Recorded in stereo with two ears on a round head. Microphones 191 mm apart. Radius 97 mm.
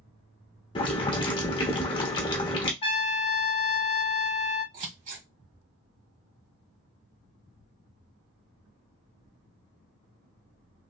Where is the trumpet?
30° left (ahead or behind), 1.2 m.